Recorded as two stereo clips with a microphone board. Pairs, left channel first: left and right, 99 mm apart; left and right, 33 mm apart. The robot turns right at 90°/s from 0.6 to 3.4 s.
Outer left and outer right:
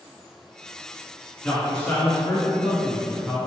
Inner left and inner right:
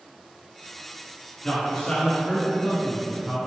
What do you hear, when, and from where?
1.4 s a man speaking: 15° left (ahead or behind), 1.2 m; by 3.4 s 10° right (ahead or behind), 1.2 m